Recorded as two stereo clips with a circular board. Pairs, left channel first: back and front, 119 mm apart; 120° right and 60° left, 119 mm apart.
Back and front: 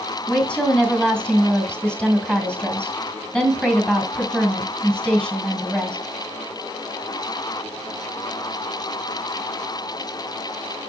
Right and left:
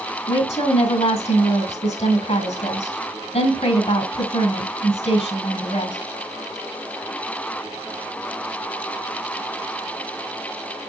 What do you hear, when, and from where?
0.3 s a woman speaking: 100° right, 2.5 m